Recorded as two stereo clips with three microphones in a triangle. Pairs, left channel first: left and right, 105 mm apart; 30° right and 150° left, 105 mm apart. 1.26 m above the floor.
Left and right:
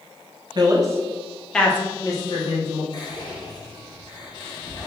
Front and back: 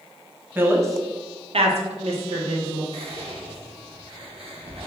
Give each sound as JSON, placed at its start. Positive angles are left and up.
{"t": 0.6, "sound": "a woman speaking", "azimuth_deg": -140, "distance_m": 0.8}
{"t": 2.9, "sound": "whispering", "azimuth_deg": 135, "distance_m": 1.1}